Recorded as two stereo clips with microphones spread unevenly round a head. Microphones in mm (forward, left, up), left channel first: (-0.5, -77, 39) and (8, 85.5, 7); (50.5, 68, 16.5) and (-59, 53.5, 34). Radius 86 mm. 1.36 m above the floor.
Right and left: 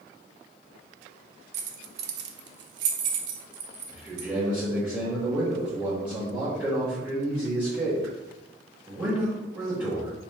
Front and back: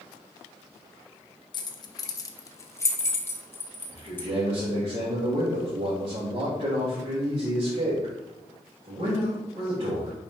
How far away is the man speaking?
About 2.5 m.